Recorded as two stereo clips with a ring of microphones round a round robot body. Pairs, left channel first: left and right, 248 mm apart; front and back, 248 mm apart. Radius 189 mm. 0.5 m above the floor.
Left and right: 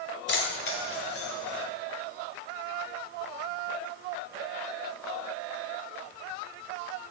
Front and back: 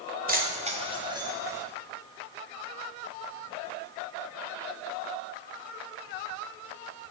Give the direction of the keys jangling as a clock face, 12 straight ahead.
8 o'clock.